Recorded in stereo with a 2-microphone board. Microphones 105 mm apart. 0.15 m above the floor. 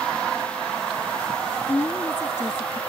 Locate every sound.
1.7 s a woman speaking: 25° left (ahead or behind)